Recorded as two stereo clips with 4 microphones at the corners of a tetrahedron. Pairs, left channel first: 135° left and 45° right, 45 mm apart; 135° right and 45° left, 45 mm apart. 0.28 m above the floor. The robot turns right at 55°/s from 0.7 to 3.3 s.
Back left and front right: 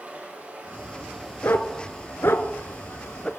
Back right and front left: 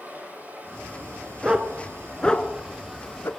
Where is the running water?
5° left, 5.5 m; by 3.4 s 145° left, 5.5 m.